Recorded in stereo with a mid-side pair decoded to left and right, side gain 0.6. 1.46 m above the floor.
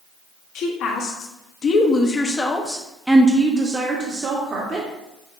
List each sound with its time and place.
0.6 s a woman speaking: 65° left, 1.4 m; by 4.9 s 45° right, 1.6 m